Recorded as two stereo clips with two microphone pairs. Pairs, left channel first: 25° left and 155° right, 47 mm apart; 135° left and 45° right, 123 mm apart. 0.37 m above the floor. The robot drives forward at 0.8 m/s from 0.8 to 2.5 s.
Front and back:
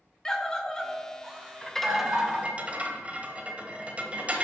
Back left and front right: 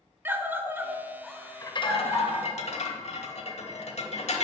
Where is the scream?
25° right, 0.8 m; by 2.4 s 175° right, 1.3 m.